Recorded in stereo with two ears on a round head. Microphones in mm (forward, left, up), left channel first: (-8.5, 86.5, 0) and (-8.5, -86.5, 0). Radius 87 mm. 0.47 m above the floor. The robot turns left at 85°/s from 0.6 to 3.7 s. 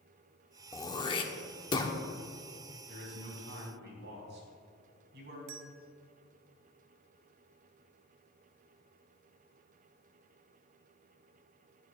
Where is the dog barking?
No dog barking in this recording.